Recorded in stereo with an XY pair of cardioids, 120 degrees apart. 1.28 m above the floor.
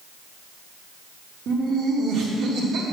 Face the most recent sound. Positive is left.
turn(degrees=-60)